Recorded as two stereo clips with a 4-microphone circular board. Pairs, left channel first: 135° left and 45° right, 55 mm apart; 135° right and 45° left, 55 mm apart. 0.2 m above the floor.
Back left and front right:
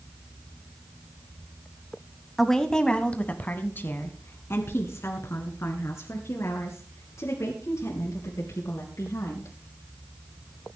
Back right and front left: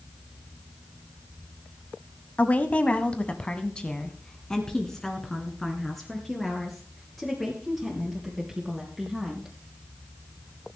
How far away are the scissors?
No scissors in this recording.